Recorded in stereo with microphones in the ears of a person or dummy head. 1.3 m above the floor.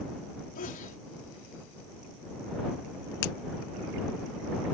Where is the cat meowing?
No cat meowing in this recording.